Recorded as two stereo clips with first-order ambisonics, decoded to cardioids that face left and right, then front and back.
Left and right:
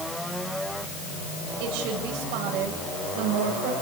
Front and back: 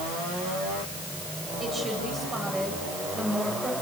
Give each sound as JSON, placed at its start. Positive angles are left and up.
{"t": 1.6, "sound": "a woman speaking", "azimuth_deg": -105, "distance_m": 9.0}